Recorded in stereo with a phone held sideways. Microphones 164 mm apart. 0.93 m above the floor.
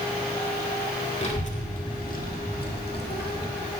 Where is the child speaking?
40° left (ahead or behind), 1.9 m; by 3.5 s 80° left, 1.6 m.